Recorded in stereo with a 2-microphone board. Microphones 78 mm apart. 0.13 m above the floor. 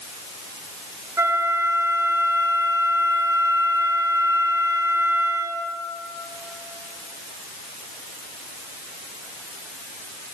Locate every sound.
1.2 s a flute: 35° right (ahead or behind), 0.8 m